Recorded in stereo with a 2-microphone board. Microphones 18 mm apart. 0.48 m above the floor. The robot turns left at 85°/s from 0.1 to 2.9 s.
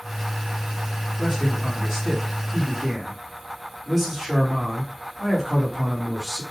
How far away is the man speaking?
About 1.3 m.